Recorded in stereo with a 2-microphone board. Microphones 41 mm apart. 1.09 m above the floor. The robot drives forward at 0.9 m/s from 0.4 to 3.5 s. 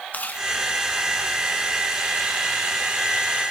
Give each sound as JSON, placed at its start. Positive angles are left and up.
{"t": 0.1, "sound": "chewing", "side_deg": 45, "distance_m": 1.7}